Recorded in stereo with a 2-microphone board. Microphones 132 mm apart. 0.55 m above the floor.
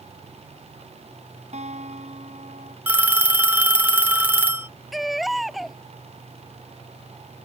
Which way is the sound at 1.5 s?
60° right (ahead or behind).